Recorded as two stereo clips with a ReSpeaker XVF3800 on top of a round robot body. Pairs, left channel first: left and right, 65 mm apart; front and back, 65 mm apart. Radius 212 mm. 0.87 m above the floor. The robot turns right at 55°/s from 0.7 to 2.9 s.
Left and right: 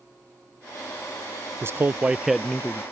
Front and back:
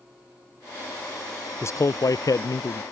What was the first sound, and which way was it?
A man speaking, 45° right.